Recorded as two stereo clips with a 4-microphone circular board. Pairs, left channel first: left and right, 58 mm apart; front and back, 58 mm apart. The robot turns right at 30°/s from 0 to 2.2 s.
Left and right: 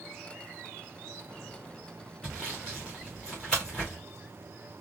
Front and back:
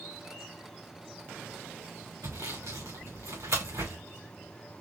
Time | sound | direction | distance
2.2 | sawing | 165° left | 2.5 m